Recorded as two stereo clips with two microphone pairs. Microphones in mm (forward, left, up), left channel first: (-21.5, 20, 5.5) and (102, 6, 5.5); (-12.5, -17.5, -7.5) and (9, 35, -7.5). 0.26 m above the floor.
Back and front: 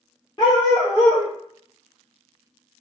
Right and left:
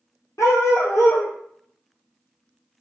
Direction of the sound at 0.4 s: 140° right.